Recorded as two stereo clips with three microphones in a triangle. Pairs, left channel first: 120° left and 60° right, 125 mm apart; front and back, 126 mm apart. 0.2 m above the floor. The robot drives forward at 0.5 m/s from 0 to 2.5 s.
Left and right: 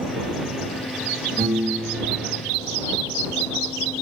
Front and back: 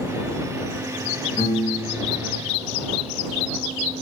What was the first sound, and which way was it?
A piano, 85° right.